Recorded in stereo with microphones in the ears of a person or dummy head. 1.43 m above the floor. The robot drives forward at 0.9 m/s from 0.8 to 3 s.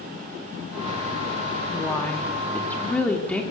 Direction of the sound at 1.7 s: 15° left (ahead or behind).